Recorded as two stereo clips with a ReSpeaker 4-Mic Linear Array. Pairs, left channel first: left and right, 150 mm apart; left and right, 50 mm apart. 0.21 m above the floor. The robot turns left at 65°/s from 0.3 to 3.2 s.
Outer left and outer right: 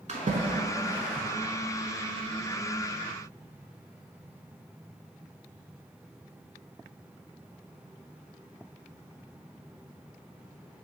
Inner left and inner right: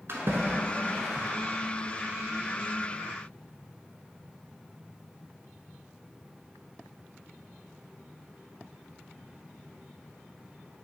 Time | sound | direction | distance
0.1 | a splash | 50° right (ahead or behind) | 0.7 m